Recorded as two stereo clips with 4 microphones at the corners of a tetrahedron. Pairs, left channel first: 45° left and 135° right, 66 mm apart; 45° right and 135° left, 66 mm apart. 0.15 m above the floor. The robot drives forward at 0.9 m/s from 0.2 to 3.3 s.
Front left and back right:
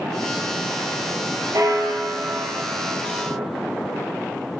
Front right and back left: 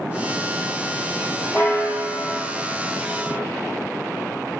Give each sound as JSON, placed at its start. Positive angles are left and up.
{"t": 1.5, "sound": "a bell", "azimuth_deg": -105, "distance_m": 2.5}